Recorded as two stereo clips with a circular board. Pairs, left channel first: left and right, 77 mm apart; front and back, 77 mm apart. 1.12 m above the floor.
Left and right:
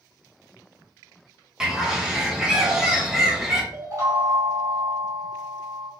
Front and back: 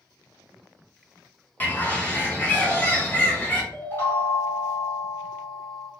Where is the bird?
20° right, 0.9 m.